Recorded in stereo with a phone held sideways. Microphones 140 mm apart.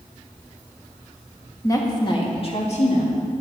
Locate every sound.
1.6 s a woman speaking: 20° left (ahead or behind), 1.9 m; by 3.2 s 60° left (ahead or behind), 2.5 m